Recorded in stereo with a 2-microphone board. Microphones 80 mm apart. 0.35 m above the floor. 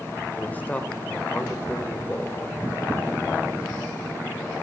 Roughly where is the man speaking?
Centre.